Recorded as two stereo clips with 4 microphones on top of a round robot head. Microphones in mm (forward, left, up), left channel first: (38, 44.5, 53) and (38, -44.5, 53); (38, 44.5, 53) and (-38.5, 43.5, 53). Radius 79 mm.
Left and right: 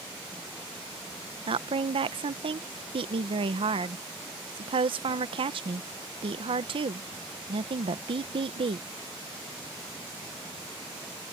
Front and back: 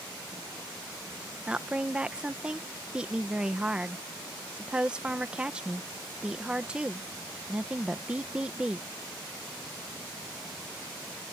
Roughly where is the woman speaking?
Right.